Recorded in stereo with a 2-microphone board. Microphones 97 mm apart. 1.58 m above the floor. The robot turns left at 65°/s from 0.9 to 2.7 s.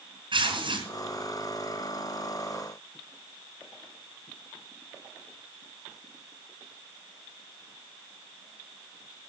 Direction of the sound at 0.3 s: 55° right (ahead or behind).